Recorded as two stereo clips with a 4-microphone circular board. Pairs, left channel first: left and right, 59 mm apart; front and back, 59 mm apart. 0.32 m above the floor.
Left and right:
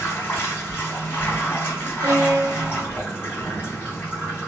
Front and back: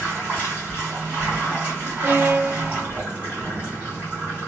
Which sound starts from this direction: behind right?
A violin, at 2.0 s.